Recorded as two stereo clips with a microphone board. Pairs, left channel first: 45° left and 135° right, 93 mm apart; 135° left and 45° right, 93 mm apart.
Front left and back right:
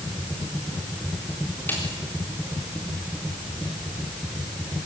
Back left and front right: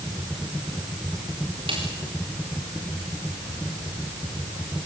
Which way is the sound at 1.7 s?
25° right.